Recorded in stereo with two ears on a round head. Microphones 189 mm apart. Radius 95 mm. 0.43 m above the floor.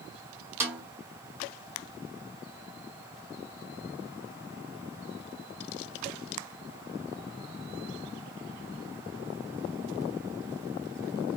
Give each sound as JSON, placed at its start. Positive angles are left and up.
{"t": 0.6, "sound": "a snare drum", "side_deg": -10, "distance_m": 1.5}